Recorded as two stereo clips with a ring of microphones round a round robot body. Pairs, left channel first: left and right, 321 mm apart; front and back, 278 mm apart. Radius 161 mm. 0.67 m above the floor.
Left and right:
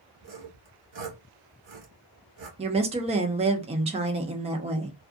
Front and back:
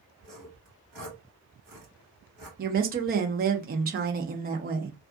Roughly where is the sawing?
Behind right.